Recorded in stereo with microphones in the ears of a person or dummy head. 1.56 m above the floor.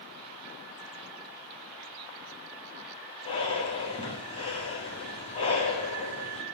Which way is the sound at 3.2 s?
30° left (ahead or behind).